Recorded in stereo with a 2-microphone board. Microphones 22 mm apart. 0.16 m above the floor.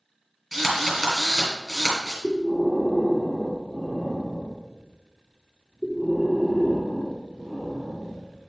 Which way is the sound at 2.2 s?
10° right (ahead or behind).